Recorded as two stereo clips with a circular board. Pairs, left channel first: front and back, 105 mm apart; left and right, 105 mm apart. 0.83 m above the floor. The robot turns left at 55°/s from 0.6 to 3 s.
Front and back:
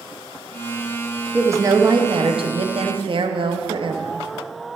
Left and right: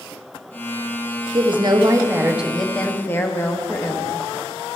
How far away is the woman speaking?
About 1.0 m.